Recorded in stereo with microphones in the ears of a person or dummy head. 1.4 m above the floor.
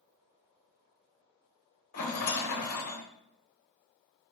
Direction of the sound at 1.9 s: 55° left (ahead or behind).